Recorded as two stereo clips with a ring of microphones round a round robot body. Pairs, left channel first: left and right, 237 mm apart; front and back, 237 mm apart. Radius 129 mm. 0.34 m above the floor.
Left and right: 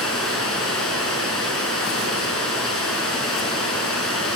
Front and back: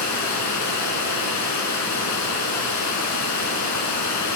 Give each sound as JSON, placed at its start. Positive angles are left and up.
{"t": 0.0, "sound": "running water", "azimuth_deg": 0, "distance_m": 4.0}